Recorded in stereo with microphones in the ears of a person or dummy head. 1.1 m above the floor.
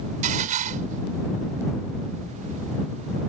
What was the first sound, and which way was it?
Dishes clattering, 45° right (ahead or behind).